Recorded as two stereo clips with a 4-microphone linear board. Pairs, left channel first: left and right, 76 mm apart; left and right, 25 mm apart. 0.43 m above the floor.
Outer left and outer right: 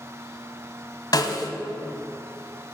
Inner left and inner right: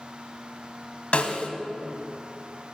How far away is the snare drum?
About 0.9 m.